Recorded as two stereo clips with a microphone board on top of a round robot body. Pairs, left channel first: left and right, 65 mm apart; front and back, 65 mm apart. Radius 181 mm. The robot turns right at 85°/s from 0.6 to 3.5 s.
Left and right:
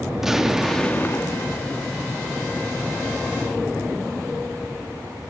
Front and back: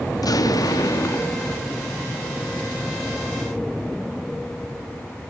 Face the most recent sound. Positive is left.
turn(degrees=-120)